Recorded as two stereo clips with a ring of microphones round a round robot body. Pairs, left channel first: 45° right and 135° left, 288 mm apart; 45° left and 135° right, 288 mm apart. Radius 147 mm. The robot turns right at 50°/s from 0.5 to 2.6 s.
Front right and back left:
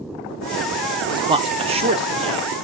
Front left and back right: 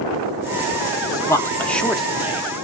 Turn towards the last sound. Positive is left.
turn(degrees=165)